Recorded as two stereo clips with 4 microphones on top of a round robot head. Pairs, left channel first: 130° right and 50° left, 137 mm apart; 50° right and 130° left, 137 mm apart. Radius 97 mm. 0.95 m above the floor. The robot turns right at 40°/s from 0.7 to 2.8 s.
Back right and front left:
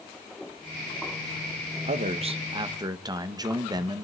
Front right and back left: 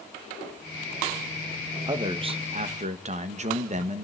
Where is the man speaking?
70° left, 1.4 m; by 4.0 s 110° left, 1.4 m.